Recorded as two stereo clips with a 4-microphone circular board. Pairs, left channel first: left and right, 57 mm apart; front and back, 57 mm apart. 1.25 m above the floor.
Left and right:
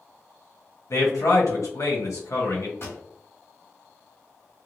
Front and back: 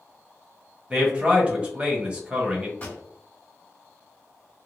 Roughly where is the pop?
Ahead left.